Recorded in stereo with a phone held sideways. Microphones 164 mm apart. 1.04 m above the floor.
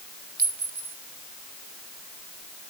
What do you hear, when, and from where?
0.4 s a clink: 70° right (ahead or behind), 2.5 m